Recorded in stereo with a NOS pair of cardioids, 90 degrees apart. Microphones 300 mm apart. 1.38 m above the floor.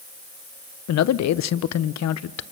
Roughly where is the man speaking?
Ahead left.